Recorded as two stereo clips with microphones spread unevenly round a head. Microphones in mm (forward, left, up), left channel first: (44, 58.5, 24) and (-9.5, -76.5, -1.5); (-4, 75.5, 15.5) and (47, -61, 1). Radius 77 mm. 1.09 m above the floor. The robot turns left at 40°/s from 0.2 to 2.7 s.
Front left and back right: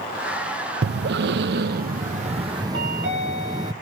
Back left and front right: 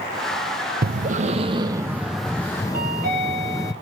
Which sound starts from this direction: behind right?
A chime, at 2.7 s.